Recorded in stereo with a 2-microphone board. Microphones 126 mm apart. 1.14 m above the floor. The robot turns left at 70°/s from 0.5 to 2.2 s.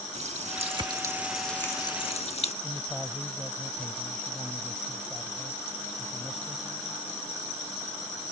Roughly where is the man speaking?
Centre.